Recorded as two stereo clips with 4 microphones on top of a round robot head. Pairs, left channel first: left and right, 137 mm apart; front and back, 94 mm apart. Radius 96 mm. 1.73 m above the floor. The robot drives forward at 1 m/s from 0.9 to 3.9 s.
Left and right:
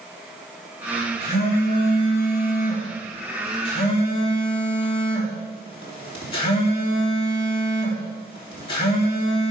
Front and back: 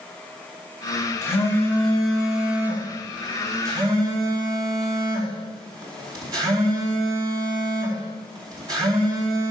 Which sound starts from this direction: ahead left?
A phone buzzing, at 1.2 s.